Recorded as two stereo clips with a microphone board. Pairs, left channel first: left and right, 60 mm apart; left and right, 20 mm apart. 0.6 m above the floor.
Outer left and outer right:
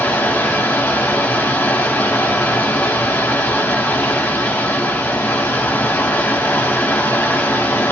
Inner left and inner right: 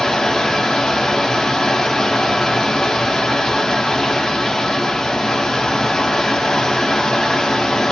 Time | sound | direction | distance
0.0 | running water | 40° left (ahead or behind) | 1.0 m